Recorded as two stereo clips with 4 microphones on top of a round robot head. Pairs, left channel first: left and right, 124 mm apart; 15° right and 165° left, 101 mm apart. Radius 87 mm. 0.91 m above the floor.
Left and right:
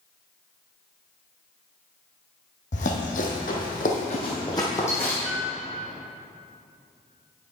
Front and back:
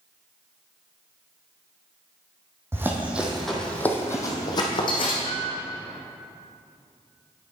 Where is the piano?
85° right, 1.0 m.